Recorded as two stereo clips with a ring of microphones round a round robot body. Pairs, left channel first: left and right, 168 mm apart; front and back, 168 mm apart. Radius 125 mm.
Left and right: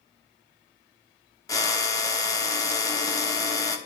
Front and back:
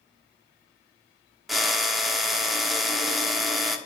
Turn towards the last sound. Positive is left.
turn(degrees=95)